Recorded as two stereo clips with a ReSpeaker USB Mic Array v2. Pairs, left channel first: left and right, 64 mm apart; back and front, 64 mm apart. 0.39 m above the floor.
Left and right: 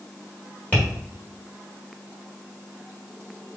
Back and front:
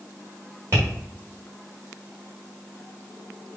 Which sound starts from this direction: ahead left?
Tapping, at 0.7 s.